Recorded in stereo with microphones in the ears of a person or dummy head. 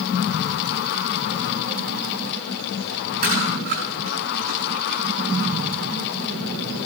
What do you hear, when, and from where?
3.2 s chewing: 50° right (ahead or behind), 4.5 m